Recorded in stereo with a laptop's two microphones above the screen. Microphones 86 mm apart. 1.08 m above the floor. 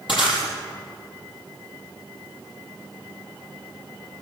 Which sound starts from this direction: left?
Breaking glass, at 0.1 s.